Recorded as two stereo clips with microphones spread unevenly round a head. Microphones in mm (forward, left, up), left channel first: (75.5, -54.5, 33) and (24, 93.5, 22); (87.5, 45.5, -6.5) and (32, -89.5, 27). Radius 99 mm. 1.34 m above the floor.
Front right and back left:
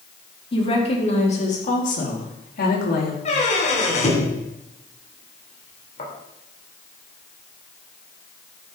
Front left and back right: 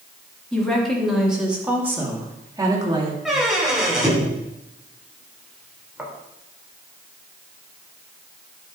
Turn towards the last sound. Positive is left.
turn(degrees=-30)